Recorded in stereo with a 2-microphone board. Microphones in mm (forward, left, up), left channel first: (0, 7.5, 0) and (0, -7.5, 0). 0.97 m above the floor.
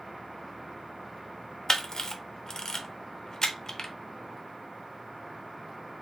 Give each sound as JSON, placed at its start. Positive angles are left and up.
{"t": 1.7, "sound": "a camera shutter", "side_deg": 35, "distance_m": 0.7}